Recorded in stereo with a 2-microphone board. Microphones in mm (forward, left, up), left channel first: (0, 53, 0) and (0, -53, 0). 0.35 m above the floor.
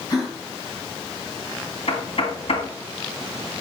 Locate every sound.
0.1 s a gasp: 35° left (ahead or behind), 3 m
1.9 s knocking: 65° left (ahead or behind), 1.7 m